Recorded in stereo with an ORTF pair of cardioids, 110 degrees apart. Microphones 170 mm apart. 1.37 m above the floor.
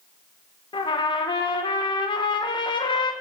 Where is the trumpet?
25° left, 1.7 m.